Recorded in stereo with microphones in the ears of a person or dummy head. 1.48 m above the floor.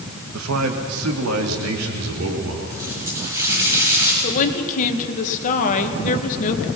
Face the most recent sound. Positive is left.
turn(degrees=45)  # may be behind; listen again after turning